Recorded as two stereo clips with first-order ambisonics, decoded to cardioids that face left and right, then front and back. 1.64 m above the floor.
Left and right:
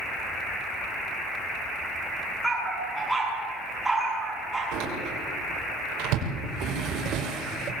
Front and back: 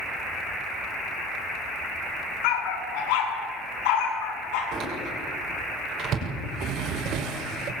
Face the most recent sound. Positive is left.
turn(degrees=-135)